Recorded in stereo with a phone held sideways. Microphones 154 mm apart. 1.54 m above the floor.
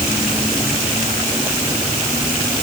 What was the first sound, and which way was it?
Only background noise.